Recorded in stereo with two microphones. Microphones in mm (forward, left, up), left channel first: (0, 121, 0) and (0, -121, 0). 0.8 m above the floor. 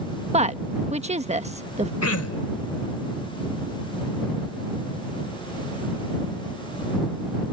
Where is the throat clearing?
70° left (ahead or behind).